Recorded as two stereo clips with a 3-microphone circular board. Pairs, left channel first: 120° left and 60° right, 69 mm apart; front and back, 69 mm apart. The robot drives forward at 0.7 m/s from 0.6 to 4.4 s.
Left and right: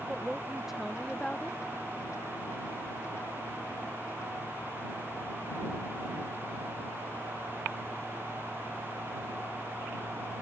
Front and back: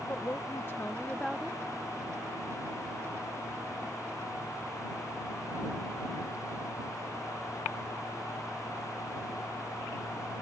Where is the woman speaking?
15° left; by 1.6 s 145° left.